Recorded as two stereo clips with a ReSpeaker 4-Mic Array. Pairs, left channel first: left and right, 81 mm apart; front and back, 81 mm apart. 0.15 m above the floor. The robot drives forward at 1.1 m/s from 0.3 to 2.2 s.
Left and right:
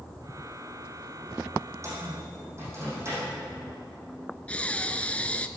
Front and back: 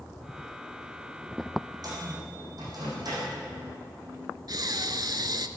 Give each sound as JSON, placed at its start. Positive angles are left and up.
{"t": 1.8, "sound": "a microwave", "azimuth_deg": -140, "distance_m": 5.0}
{"t": 4.5, "sound": "breathing", "azimuth_deg": 160, "distance_m": 0.5}